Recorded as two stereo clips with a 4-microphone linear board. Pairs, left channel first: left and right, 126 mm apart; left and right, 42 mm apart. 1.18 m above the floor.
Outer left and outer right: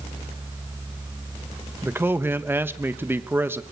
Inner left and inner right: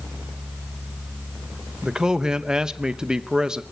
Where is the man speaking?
15° right (ahead or behind), 0.8 m.